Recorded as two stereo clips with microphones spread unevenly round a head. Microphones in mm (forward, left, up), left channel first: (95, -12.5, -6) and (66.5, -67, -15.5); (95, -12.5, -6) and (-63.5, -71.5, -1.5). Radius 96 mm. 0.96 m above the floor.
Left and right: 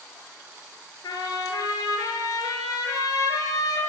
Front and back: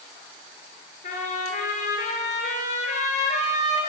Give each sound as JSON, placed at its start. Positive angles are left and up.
{"t": 1.0, "sound": "a trumpet", "azimuth_deg": 75, "distance_m": 5.0}